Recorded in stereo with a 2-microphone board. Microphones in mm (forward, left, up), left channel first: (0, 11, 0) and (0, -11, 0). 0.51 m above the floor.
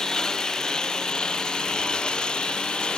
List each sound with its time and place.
0.0 s a lawn mower: 35° left (ahead or behind); by 3.0 s 50° left (ahead or behind)